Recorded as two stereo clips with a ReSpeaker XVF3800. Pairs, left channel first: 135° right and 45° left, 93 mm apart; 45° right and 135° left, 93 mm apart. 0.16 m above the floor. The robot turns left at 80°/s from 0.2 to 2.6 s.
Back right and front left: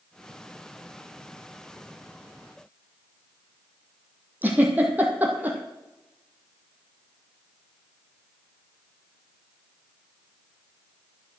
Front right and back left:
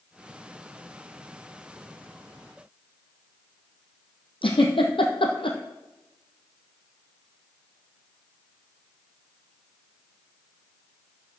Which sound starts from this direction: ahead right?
A giggle, at 4.4 s.